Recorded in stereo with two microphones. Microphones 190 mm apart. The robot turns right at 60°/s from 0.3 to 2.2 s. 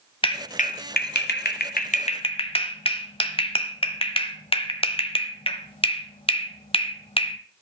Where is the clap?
30° left (ahead or behind), 1.3 m.